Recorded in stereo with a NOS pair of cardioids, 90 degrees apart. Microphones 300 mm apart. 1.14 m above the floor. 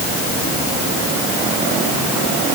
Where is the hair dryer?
No hair dryer in this recording.